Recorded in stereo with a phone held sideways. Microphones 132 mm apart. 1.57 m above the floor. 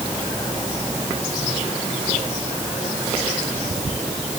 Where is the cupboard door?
No cupboard door in this recording.